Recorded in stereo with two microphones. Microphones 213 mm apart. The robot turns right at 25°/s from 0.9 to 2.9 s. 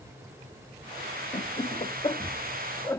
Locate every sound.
1.3 s laughter: 35° left (ahead or behind); by 3.0 s 15° left (ahead or behind)